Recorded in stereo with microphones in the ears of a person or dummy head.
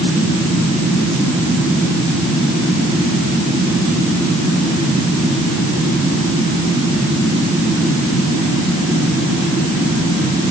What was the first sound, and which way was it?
Only background noise.